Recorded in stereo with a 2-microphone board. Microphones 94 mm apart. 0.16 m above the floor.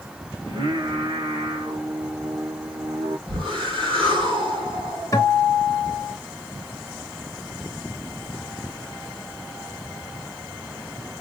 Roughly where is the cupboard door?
I don't hear a cupboard door.